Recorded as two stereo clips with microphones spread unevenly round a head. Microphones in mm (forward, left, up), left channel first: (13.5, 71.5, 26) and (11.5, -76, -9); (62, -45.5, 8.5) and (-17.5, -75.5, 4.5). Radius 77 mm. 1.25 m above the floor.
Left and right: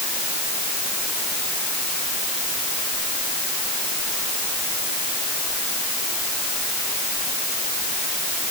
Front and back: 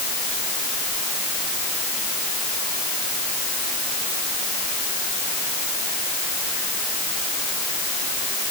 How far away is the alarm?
No alarm in this recording.